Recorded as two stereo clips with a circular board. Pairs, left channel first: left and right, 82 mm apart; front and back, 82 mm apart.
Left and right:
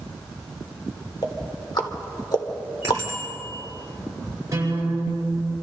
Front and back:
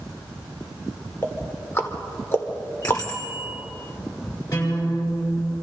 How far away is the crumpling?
No crumpling in this recording.